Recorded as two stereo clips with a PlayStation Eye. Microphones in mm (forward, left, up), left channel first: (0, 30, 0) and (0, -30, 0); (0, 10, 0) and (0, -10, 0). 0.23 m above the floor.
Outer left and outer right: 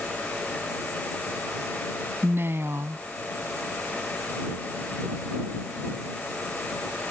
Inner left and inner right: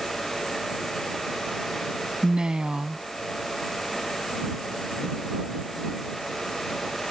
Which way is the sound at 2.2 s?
45° right (ahead or behind).